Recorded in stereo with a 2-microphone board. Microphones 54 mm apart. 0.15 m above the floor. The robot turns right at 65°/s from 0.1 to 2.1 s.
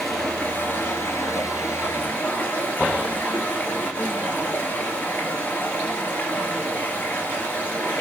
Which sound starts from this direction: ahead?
Running water, at 0.0 s.